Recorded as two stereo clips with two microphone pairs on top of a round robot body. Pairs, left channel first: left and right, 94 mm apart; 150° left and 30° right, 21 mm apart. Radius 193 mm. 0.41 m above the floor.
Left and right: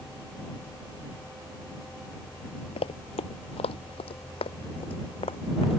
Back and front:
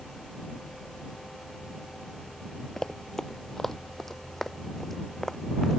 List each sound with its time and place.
2.8 s running footsteps: 90° left; by 5.8 s 75° left